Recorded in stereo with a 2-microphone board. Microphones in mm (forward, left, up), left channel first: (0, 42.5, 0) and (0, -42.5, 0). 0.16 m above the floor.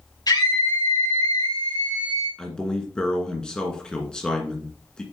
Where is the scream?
55° left (ahead or behind), 4.5 m; by 2.3 s 65° left (ahead or behind), 4 m.